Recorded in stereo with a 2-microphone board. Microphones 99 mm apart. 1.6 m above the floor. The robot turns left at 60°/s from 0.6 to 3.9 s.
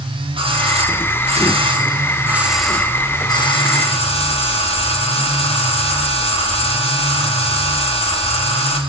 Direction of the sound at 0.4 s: 60° right.